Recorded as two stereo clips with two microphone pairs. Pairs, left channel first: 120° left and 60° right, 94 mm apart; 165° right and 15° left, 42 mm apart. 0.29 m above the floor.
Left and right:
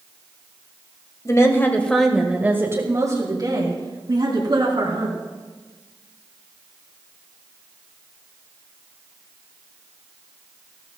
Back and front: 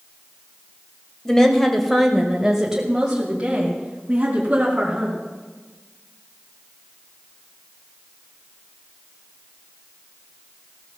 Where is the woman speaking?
130° left, 1.7 m; by 5.2 s 45° right, 4 m.